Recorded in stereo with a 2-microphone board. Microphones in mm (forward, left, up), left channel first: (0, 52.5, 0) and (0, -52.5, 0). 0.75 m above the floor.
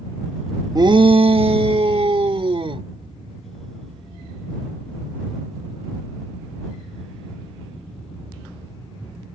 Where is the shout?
40° right (ahead or behind); by 2.9 s 55° right (ahead or behind).